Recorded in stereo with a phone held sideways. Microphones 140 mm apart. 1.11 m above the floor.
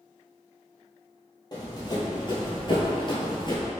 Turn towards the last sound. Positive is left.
turn(degrees=35)  # may be behind; listen again after turning